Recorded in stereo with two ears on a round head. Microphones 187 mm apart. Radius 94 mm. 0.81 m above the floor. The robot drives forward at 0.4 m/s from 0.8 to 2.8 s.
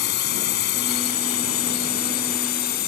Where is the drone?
55° left (ahead or behind); by 2.9 s 50° left (ahead or behind).